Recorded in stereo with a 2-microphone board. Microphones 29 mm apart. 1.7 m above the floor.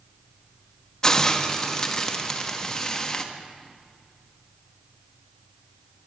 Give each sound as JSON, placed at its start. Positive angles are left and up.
{"t": 1.0, "sound": "a hiss", "side_deg": 20, "distance_m": 1.1}